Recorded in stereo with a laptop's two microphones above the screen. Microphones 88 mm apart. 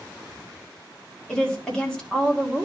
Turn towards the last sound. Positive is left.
turn(degrees=10)  # may be behind; listen again after turning